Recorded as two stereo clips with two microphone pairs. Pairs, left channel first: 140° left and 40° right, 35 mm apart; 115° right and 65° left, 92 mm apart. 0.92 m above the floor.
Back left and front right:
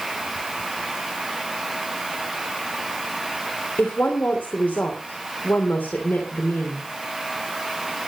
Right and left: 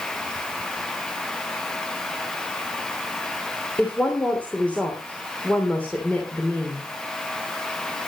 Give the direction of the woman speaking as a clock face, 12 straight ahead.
6 o'clock.